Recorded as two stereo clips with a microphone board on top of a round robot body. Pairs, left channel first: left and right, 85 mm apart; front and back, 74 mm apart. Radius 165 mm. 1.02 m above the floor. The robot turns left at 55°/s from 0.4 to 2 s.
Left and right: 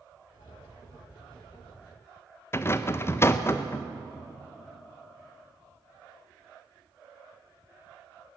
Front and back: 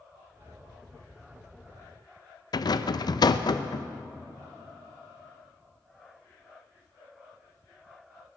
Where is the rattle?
30° left, 0.7 m.